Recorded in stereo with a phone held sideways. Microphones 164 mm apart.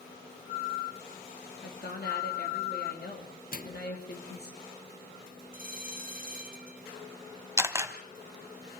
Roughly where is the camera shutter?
Centre.